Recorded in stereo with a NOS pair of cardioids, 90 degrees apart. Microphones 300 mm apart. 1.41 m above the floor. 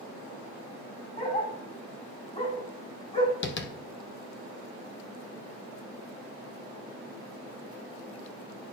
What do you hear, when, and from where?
1.2 s a dog barking: 30° left, 3.5 m
3.4 s tapping: 40° left, 0.7 m